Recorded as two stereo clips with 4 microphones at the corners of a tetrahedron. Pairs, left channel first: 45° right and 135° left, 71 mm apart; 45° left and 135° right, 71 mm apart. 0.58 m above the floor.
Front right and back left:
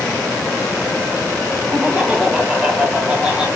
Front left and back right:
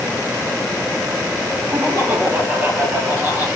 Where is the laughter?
165° right, 1.1 m.